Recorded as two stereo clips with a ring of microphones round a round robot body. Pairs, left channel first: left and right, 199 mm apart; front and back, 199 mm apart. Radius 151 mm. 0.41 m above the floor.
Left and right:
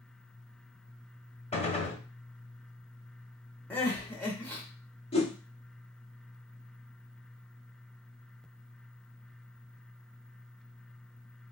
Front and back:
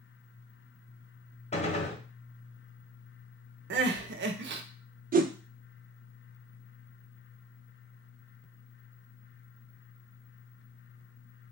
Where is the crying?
170° left, 0.6 m.